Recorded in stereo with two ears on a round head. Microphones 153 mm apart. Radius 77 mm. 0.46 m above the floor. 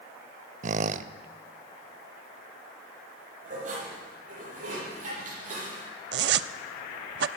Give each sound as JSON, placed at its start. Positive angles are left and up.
{"t": 0.6, "sound": "a squeak", "side_deg": -45, "distance_m": 0.5}
{"t": 3.4, "sound": "dishes clattering", "side_deg": -50, "distance_m": 8.5}
{"t": 6.1, "sound": "a zipper", "side_deg": -65, "distance_m": 0.5}